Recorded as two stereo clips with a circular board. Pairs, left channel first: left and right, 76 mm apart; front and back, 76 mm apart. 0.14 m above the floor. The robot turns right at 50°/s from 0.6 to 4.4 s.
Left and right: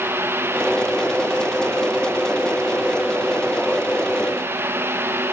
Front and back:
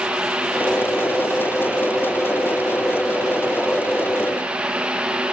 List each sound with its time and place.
Only background noise.